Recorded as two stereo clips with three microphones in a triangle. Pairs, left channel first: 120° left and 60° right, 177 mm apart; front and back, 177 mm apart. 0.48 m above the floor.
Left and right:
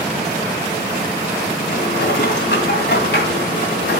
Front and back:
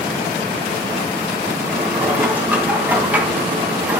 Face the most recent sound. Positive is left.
turn(degrees=100)